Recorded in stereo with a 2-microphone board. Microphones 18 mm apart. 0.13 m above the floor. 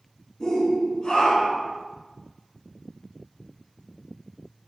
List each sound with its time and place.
0.4 s a shout: 30° left (ahead or behind), 1.9 m; by 1.7 s 60° left (ahead or behind), 3 m